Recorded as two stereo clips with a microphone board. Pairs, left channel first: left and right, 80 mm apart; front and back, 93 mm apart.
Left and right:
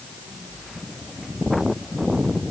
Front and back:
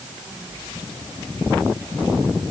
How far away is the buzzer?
I don't hear a buzzer.